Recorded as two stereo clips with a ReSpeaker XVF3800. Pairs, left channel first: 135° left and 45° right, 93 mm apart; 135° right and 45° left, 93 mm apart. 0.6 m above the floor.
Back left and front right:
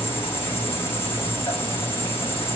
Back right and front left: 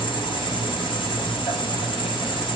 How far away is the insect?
About 5.5 m.